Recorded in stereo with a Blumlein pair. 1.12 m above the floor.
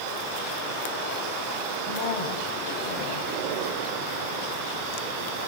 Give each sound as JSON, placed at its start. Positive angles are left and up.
{"t": 1.9, "sound": "a man speaking", "azimuth_deg": 45, "distance_m": 6.5}